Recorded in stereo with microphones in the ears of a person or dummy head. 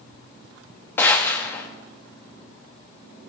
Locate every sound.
1.0 s a gunshot: 15° left (ahead or behind), 1.2 m